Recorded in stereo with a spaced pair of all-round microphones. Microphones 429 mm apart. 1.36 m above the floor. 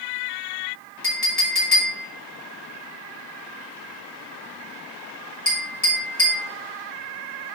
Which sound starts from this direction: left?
A clink, at 1.0 s.